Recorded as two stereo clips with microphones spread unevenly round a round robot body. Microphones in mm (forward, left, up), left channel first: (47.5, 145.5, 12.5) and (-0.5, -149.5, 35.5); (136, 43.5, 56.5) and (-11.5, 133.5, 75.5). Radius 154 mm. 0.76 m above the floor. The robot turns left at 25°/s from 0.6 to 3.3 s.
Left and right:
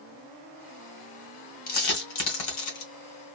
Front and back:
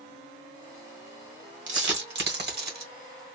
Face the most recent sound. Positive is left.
turn(degrees=105)